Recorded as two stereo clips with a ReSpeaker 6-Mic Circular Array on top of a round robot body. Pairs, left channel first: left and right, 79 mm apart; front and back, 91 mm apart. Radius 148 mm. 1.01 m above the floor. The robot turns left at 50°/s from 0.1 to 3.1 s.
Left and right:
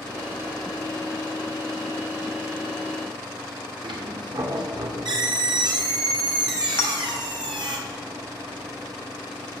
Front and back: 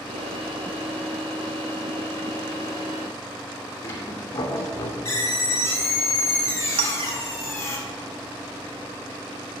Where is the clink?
155° left, 0.8 m.